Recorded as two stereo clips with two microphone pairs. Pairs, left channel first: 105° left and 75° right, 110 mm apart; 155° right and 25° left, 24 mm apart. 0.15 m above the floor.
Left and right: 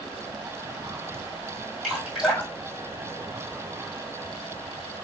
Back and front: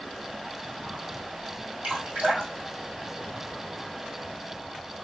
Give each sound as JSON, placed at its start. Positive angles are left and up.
{"t": 1.8, "sound": "dripping", "azimuth_deg": 15, "distance_m": 1.9}